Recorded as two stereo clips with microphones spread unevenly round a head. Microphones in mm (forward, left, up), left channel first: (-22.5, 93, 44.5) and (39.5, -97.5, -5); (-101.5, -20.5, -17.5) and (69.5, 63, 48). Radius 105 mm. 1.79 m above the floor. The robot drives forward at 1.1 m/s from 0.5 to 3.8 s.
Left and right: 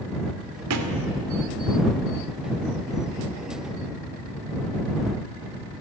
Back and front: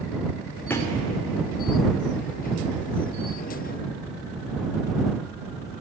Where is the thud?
65° right, 2.5 m; by 1.0 s 70° right, 2.5 m.